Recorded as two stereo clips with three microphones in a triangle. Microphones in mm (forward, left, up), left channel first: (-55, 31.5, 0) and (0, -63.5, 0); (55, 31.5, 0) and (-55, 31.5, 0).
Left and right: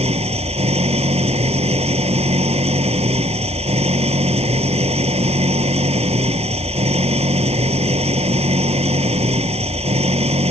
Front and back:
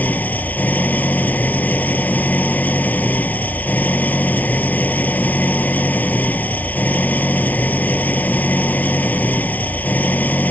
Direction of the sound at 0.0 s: 75° right.